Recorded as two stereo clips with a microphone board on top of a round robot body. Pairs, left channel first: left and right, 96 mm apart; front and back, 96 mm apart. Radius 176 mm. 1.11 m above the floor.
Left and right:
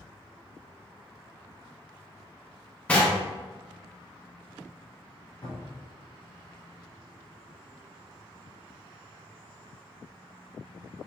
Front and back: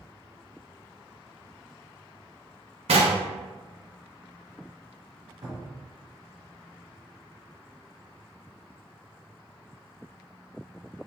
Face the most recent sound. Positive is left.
turn(degrees=140)